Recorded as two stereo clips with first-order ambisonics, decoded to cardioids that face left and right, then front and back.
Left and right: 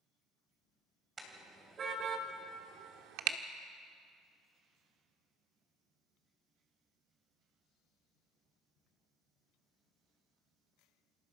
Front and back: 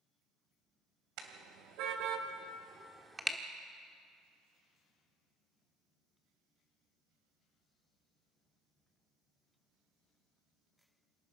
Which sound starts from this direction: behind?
A car horn, at 1.2 s.